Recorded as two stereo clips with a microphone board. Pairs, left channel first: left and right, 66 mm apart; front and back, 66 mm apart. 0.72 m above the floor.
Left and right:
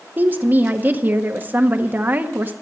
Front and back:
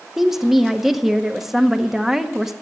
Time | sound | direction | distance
0.2 | a woman speaking | 100° right | 0.9 m